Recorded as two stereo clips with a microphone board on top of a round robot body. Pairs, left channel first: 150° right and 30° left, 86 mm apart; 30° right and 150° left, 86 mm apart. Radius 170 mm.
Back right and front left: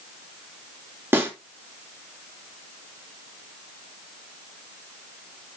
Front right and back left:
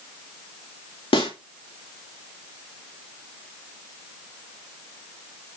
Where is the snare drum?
35° right, 3.5 m.